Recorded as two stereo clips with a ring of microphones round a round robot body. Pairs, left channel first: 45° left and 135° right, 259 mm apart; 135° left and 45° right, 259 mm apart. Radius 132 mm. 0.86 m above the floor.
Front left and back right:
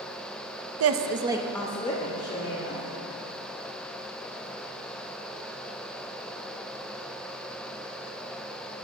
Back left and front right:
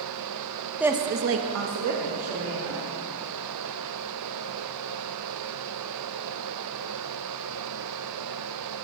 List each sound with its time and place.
0.8 s a woman speaking: 130° right, 0.7 m; by 2.8 s 10° right, 2 m